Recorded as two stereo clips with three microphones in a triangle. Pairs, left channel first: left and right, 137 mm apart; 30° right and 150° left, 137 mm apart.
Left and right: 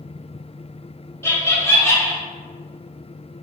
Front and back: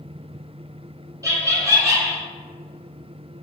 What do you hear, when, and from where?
1.2 s laughter: 130° left, 1.1 m